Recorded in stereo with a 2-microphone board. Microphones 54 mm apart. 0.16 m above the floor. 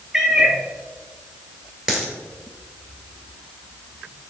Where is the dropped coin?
15° right (ahead or behind), 1.6 m.